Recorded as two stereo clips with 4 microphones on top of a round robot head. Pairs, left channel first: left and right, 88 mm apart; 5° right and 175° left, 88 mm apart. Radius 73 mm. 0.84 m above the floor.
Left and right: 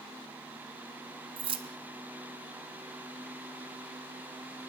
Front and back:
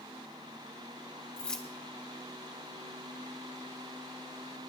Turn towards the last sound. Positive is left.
turn(degrees=-85)